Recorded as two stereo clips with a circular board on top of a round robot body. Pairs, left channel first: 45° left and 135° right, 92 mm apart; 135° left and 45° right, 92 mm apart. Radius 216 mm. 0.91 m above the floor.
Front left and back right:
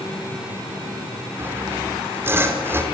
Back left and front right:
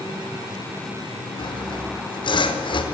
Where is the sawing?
160° left, 4.5 m.